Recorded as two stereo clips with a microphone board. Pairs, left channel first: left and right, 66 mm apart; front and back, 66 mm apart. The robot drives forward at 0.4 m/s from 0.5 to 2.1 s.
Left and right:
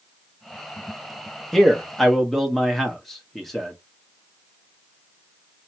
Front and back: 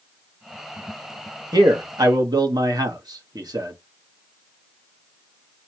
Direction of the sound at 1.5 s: 175° left.